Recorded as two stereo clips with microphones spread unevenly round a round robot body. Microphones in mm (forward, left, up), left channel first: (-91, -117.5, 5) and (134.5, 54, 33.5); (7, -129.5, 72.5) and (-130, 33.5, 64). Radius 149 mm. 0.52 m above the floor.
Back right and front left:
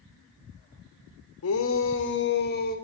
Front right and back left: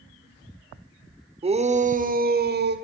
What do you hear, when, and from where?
1.4 s a shout: 170° right, 2.0 m; by 2.8 s 160° left, 2.5 m